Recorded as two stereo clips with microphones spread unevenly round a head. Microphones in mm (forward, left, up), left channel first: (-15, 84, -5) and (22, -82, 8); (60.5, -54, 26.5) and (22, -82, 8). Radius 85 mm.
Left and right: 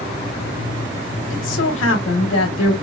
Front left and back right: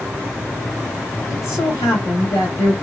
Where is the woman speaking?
95° left, 1.1 m.